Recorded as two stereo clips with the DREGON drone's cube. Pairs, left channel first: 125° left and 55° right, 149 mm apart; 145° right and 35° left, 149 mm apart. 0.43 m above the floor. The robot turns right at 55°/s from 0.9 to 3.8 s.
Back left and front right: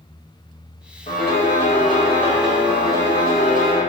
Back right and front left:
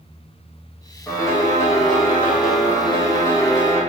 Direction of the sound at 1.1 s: 135° left.